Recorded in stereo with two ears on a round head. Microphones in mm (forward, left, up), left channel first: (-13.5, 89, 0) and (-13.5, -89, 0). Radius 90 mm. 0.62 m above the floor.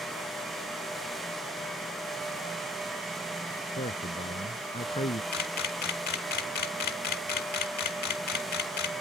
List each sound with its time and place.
3.7 s a man speaking: 35° left (ahead or behind); by 5.2 s 30° left (ahead or behind)
5.3 s a camera shutter: 55° left (ahead or behind)